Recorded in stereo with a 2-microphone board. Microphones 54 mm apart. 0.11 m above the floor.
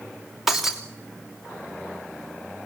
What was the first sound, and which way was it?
Breaking glass, 5° right (ahead or behind).